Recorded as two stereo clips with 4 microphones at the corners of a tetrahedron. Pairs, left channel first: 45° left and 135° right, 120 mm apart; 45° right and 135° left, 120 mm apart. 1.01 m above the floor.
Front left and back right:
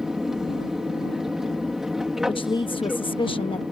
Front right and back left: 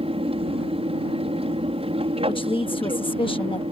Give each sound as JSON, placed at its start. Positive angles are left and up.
{"t": 0.0, "sound": "an aircraft", "azimuth_deg": 140}
{"t": 2.3, "sound": "a woman speaking", "azimuth_deg": 0}